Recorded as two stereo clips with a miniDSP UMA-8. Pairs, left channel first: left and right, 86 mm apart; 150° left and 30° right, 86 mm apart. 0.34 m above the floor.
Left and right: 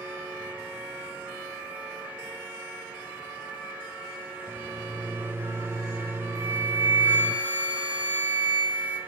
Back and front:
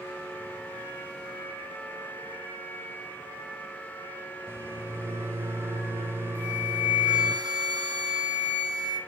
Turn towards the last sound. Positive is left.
turn(degrees=-20)